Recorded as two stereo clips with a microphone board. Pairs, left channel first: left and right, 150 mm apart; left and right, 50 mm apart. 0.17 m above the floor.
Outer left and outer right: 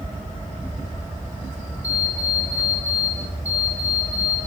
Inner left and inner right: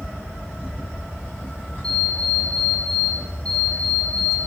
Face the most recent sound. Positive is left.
turn(degrees=20)  # may be behind; listen again after turning